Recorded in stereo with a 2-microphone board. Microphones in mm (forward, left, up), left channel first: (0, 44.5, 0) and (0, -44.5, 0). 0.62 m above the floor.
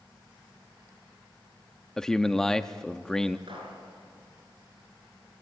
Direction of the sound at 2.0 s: 5° left (ahead or behind).